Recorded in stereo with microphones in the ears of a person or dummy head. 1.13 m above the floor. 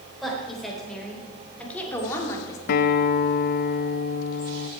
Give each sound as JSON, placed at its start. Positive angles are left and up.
{"t": 0.2, "sound": "a woman speaking", "side_deg": 0, "distance_m": 4.5}
{"t": 2.7, "sound": "a guitar", "side_deg": 45, "distance_m": 0.6}